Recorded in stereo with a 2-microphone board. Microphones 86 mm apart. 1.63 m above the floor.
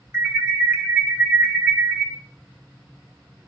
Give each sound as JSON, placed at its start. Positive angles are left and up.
{"t": 0.1, "sound": "an alarm", "side_deg": -25, "distance_m": 2.0}